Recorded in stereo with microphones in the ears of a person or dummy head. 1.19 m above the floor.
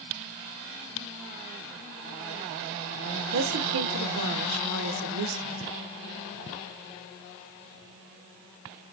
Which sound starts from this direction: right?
A woman speaking, at 3.3 s.